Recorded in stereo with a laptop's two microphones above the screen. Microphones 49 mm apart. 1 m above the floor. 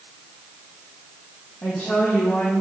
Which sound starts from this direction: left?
A woman speaking, at 1.6 s.